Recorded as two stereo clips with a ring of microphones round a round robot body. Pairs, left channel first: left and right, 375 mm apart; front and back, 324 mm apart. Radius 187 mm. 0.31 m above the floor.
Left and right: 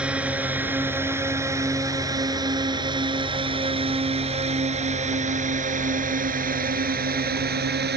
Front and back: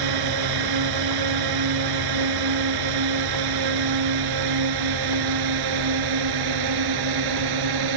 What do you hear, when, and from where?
0.0 s a drone: 175° right; by 8.0 s 155° right